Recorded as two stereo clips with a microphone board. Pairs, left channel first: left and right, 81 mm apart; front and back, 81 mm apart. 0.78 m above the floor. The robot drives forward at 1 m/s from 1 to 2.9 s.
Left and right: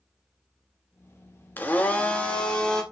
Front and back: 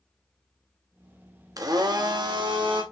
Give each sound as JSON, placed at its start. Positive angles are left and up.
{"t": 1.6, "sound": "a blender", "azimuth_deg": 155, "distance_m": 1.1}